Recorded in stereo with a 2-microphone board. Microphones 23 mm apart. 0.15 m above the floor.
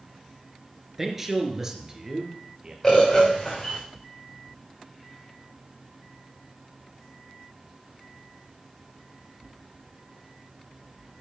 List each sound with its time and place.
1.0 s a man speaking: 15° right (ahead or behind), 2.5 m; by 2.7 s 35° right (ahead or behind), 3 m
2.8 s a bird: 15° left (ahead or behind), 5.5 m